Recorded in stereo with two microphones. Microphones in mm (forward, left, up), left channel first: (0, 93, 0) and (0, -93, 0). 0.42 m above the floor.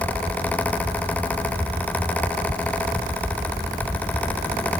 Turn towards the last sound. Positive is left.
No sound to turn to.